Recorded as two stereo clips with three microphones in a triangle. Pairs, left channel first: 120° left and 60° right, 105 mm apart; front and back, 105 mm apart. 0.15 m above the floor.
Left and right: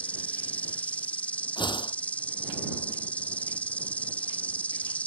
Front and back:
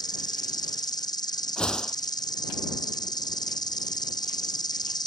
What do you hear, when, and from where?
0.0 s an insect: 45° left
1.6 s a whoosh: 80° left